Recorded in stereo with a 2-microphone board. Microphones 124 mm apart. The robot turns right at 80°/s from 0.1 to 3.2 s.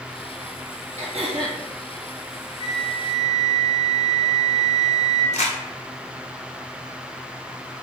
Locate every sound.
1.0 s throat clearing: 75° right, 1.2 m; by 1.6 s 25° right, 1.2 m
2.6 s a flute: 90° left, 0.8 m; by 5.2 s 140° left, 0.8 m
5.3 s crumpling: 75° left (ahead or behind), 0.7 m